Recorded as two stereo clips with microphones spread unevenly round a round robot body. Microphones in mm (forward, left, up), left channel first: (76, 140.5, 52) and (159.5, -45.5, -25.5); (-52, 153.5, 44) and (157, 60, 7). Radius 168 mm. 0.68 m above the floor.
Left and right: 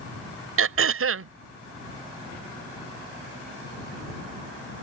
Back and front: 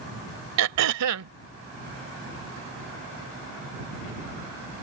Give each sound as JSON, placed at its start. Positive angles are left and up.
{"t": 0.6, "sound": "throat clearing", "azimuth_deg": -45}